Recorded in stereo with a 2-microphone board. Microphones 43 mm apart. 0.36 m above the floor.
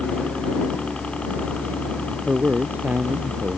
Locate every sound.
0.0 s a helicopter: 30° left (ahead or behind)
2.3 s a man speaking: 45° right (ahead or behind)